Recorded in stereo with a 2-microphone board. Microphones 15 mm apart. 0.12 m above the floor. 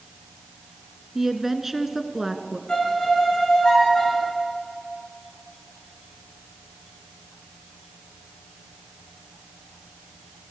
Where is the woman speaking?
20° right (ahead or behind), 1.5 m.